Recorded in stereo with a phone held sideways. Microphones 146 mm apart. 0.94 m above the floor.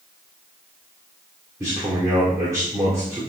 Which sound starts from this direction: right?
A man speaking, at 1.6 s.